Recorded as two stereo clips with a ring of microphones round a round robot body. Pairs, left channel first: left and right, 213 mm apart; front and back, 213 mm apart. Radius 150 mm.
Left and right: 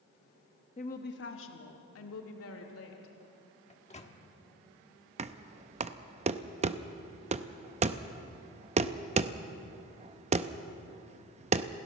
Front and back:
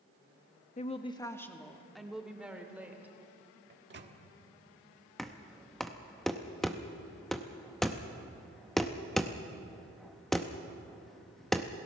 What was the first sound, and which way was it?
A woman speaking, 35° left.